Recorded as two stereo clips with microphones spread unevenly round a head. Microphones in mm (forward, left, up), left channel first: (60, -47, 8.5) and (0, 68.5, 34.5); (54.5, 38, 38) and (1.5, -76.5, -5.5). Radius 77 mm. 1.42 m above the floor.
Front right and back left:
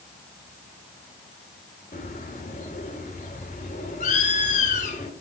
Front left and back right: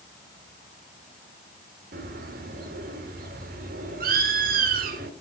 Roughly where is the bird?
Right.